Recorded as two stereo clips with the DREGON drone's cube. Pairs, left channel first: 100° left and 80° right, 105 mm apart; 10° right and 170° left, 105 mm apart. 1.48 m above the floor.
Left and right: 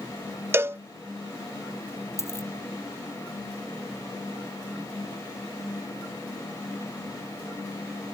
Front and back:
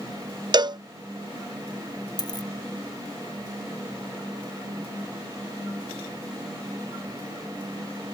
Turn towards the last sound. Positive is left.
turn(degrees=35)